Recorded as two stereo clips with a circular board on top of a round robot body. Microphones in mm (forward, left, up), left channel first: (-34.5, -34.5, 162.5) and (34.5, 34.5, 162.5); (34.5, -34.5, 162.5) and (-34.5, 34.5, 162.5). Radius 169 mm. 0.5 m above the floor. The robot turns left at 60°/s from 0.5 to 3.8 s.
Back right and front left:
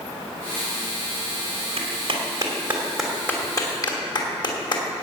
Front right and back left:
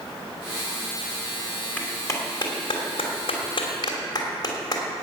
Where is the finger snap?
85° right, 2.5 m.